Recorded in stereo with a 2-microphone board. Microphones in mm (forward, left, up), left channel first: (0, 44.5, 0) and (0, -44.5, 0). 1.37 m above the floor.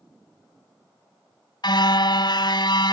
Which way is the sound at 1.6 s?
55° left (ahead or behind).